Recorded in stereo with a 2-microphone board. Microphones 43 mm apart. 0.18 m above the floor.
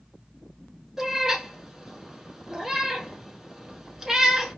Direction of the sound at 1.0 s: 15° right (ahead or behind).